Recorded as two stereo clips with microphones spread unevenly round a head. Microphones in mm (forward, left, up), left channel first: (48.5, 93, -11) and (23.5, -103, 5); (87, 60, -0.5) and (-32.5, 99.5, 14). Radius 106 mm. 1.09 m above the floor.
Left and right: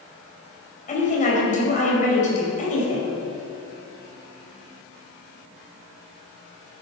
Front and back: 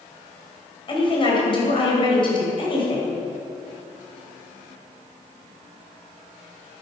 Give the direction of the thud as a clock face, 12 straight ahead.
No thud in this recording.